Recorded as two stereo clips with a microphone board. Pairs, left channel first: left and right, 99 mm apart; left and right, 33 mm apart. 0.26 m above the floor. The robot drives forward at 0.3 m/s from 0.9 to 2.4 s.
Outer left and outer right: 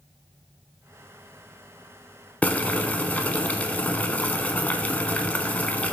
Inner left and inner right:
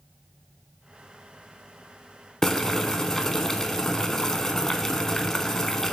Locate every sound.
2.4 s boiling: 15° left (ahead or behind), 0.6 m